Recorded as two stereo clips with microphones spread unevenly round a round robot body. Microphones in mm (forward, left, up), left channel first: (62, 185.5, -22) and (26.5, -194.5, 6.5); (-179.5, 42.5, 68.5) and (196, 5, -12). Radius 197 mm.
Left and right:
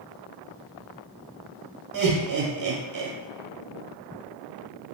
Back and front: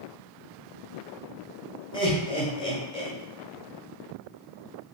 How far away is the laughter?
About 1.0 m.